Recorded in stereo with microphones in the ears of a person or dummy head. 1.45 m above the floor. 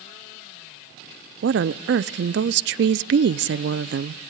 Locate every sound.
1.4 s a woman speaking: 60° right (ahead or behind), 0.6 m